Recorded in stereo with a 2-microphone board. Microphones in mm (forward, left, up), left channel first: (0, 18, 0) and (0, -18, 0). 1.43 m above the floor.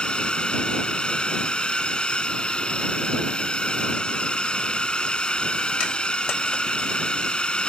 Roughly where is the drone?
Left.